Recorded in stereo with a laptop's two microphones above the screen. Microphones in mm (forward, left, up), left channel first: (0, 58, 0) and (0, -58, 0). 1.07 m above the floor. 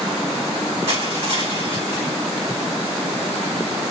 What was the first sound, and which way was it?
Crushing, 60° right (ahead or behind).